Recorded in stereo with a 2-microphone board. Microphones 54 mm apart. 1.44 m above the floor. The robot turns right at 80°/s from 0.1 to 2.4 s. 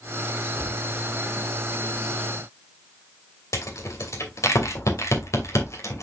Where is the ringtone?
No ringtone in this recording.